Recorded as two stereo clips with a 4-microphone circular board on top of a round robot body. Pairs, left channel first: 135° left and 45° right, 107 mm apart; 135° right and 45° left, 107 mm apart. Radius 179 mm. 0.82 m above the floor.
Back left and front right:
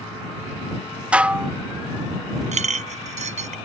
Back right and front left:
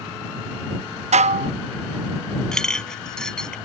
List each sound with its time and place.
1.1 s dishes clattering: 35° left
2.5 s a clink: 50° right